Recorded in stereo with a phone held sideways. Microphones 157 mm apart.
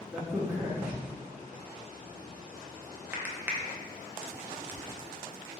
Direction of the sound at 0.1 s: 10° right (ahead or behind).